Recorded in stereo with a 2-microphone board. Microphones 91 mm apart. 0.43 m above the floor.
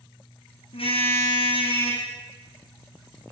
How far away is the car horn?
About 7 m.